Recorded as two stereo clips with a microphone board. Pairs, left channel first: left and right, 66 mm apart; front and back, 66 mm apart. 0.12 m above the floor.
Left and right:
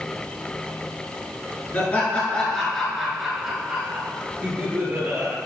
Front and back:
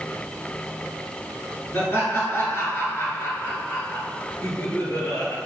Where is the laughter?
40° left, 1.5 m; by 5.4 s 40° right, 2.0 m.